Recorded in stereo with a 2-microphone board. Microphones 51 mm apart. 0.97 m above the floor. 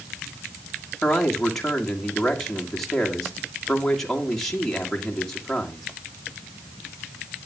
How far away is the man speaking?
About 2.0 m.